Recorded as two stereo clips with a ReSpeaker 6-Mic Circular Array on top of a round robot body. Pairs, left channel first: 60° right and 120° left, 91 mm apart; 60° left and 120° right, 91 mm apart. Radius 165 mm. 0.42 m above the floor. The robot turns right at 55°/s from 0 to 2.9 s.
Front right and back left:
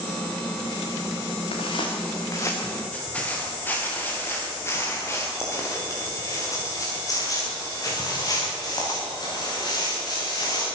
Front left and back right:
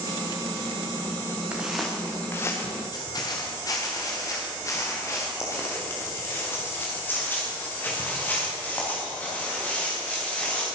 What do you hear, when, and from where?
1.5 s footsteps: 40° right, 4 m; by 10.6 s 15° right, 10.5 m